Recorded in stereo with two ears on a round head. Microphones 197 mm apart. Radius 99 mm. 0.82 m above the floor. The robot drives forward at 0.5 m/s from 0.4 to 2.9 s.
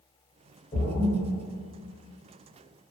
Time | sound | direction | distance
0.7 | a splash | 20° left (ahead or behind) | 0.9 m